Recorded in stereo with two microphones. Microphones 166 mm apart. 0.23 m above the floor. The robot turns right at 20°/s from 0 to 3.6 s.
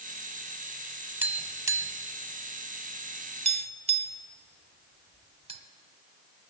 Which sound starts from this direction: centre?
Tapping, at 1.2 s.